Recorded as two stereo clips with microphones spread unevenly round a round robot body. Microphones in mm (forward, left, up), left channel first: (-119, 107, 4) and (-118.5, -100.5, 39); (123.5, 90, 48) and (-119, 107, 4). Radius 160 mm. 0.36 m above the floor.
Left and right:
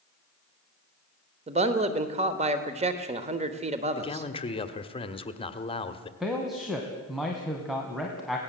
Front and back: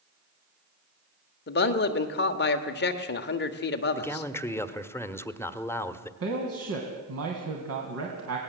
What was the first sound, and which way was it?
A man speaking, 35° right.